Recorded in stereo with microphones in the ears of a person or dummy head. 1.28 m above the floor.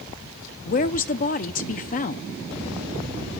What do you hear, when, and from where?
0.7 s a woman speaking: 40° left (ahead or behind), 0.7 m